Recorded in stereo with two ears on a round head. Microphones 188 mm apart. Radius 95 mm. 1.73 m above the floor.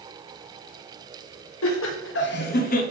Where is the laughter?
65° left (ahead or behind), 1.2 m; by 2.8 s 40° left (ahead or behind), 0.9 m.